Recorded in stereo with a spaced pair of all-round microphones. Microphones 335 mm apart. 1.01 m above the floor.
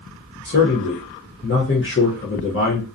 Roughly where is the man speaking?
Left.